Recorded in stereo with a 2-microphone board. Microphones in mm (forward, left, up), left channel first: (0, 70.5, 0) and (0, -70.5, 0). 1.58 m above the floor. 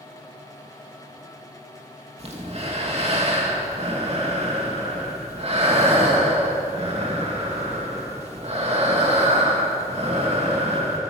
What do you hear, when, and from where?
2.2 s breathing: 45° right (ahead or behind), 2.5 m